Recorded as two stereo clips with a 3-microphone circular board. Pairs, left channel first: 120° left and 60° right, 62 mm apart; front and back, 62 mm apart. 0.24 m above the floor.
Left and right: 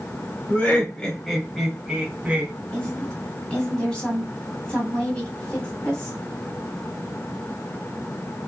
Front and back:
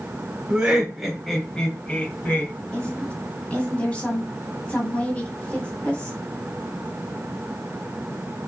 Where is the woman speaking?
55° left, 1.9 m.